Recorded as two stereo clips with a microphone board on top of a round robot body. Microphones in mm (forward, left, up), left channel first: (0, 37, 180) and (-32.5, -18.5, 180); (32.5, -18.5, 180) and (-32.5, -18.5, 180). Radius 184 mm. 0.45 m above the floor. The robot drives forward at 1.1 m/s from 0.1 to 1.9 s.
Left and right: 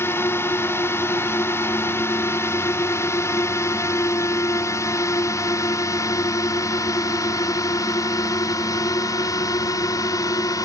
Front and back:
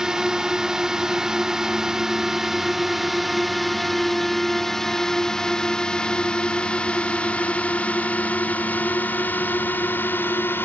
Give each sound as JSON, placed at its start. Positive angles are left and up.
{"t": 0.0, "sound": "a drone", "azimuth_deg": 100}